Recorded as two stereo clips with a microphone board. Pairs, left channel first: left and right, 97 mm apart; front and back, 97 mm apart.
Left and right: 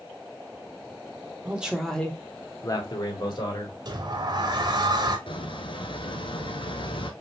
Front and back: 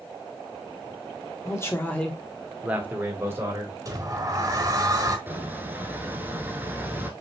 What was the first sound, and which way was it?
A man speaking, 30° right.